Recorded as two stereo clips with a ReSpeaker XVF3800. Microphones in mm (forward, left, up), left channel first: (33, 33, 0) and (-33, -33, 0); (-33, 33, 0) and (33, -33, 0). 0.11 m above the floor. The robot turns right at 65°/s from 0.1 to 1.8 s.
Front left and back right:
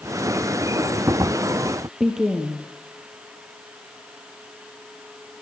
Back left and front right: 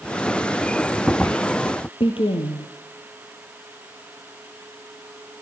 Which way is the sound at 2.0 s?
140° left.